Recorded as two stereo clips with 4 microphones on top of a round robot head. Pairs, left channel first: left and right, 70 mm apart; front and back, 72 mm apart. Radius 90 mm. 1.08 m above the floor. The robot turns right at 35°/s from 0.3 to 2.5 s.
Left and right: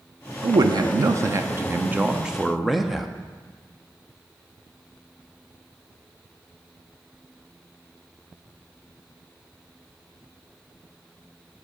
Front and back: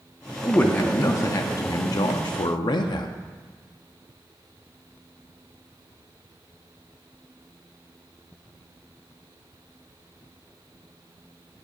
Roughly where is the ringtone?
I don't hear a ringtone.